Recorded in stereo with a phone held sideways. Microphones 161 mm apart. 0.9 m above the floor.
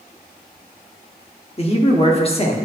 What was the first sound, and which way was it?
A man speaking, 40° left (ahead or behind).